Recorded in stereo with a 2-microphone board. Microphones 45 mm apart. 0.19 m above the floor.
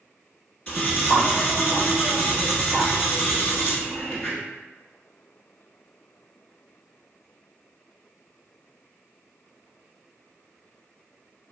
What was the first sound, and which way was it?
Cutlery clinking, 30° left (ahead or behind).